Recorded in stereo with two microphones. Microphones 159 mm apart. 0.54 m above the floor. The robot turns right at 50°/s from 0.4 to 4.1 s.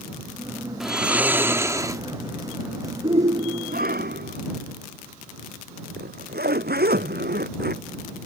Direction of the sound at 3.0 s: 145° right.